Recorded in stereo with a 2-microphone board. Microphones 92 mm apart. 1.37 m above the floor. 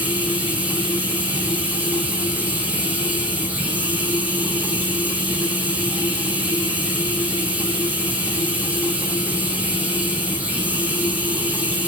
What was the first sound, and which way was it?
Running water, 15° right (ahead or behind).